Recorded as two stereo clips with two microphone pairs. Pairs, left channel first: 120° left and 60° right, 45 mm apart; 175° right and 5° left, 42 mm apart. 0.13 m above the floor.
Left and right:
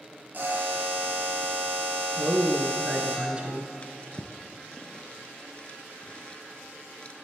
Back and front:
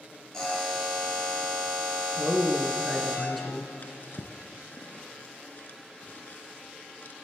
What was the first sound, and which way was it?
A buzzer, 105° right.